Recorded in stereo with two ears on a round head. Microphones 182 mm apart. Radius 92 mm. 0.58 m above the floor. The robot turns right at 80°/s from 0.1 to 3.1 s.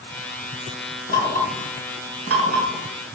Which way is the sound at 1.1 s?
40° left (ahead or behind).